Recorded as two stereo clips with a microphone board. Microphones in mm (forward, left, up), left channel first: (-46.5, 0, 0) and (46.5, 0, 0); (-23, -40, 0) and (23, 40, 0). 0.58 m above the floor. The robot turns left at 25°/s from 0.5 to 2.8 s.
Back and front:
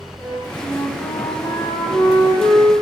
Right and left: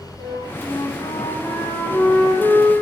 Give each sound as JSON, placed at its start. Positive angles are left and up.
{"t": 0.2, "sound": "a flute", "azimuth_deg": -125, "distance_m": 0.6}